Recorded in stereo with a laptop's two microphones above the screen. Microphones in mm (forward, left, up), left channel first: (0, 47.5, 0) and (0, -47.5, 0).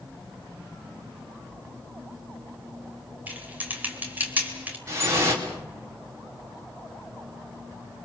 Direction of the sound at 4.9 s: 35° right (ahead or behind).